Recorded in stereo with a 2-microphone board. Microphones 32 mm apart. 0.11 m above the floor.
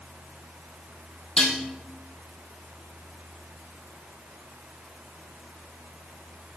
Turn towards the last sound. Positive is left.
turn(degrees=30)  # may be behind; listen again after turning